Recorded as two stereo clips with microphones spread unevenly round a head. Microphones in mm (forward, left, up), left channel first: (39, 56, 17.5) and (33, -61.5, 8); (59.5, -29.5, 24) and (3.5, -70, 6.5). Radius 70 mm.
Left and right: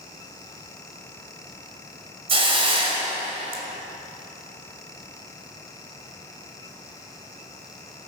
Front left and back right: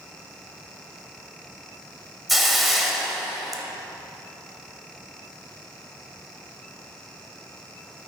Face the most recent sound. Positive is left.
turn(degrees=-50)